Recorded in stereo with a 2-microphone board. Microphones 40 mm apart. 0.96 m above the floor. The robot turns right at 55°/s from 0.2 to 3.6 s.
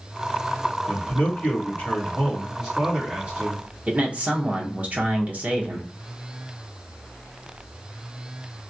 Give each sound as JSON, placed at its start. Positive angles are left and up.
{"t": 0.9, "sound": "a man speaking", "azimuth_deg": 90, "distance_m": 2.5}
{"t": 3.9, "sound": "a man speaking", "side_deg": -40, "distance_m": 0.8}